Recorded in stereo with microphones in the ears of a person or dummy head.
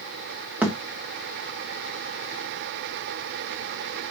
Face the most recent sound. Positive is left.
turn(degrees=-5)  # may be behind; listen again after turning